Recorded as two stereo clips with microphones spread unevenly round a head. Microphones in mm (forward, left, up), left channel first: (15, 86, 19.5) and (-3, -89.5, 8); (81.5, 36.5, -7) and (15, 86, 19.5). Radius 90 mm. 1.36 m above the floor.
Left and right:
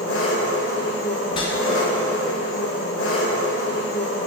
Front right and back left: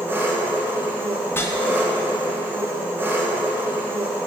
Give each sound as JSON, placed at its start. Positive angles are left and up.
{"t": 0.0, "sound": "an engine running", "azimuth_deg": 90, "distance_m": 0.8}
{"t": 1.3, "sound": "a whoosh", "azimuth_deg": 20, "distance_m": 0.5}